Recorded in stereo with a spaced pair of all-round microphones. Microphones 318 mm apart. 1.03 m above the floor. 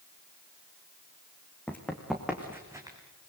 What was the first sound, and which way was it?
Running footsteps, 5° left (ahead or behind).